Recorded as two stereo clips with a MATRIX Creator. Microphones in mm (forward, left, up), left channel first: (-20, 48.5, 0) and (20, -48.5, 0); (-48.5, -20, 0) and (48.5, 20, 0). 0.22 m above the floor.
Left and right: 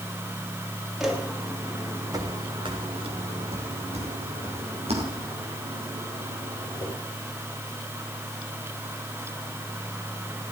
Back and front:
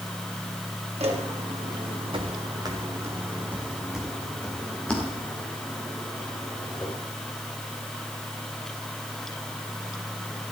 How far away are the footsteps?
About 3.5 m.